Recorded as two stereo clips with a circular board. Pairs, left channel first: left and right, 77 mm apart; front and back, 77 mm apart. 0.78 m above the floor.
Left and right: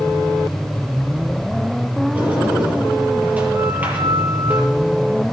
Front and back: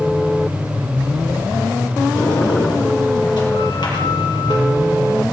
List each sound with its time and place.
2.1 s a sliding door: 20° right, 5.5 m